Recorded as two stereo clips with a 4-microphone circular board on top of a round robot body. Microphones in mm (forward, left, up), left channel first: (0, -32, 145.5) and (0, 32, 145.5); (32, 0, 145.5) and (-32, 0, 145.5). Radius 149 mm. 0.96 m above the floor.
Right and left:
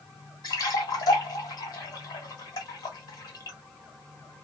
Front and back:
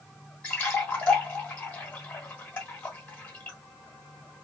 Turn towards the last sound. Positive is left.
turn(degrees=-70)